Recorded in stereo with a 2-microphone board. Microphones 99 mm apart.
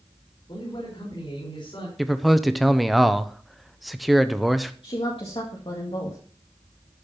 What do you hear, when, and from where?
0.5 s a man speaking: 55° left (ahead or behind), 5.5 m
2.0 s a man speaking: centre (ahead or behind), 0.8 m
4.8 s a woman speaking: 60° left (ahead or behind), 2 m